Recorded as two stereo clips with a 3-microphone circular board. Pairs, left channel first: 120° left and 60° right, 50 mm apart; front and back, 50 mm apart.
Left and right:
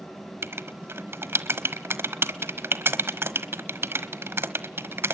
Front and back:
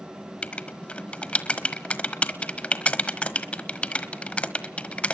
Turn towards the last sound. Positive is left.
turn(degrees=-60)